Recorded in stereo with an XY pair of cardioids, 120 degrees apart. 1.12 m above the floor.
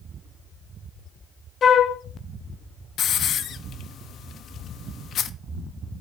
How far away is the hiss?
About 0.5 m.